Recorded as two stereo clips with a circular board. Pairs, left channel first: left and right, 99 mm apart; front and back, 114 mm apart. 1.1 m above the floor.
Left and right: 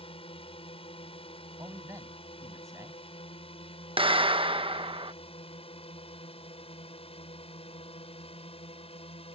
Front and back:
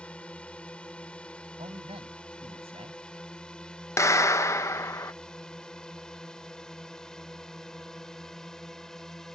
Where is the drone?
80° left; by 9.3 s 85° left.